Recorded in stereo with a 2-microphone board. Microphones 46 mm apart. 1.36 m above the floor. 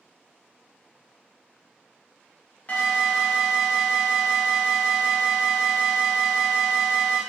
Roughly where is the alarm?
Left.